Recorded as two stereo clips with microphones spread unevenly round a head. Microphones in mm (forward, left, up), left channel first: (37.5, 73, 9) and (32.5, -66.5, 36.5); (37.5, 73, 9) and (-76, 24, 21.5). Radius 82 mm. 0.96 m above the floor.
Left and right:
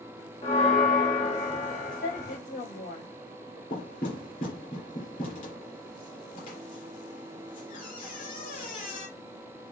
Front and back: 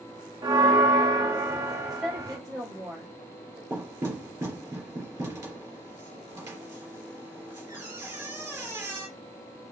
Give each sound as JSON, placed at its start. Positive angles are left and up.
{"t": 0.4, "sound": "a bell", "azimuth_deg": 140, "distance_m": 1.4}
{"t": 1.9, "sound": "a woman speaking", "azimuth_deg": 115, "distance_m": 4.0}
{"t": 3.7, "sound": "knocking", "azimuth_deg": 135, "distance_m": 3.0}